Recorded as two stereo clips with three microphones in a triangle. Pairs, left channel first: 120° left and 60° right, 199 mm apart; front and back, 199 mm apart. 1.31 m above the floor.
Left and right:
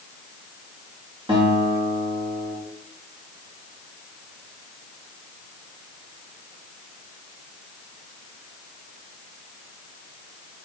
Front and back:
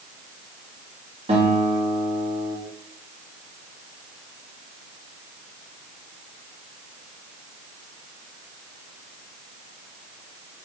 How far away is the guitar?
About 3 m.